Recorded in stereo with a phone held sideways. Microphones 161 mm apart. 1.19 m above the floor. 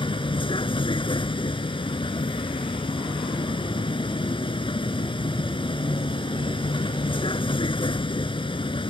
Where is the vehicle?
30° left (ahead or behind).